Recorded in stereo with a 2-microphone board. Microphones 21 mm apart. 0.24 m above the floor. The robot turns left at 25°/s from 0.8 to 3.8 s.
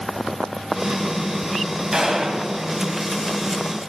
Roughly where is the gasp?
No gasp in this recording.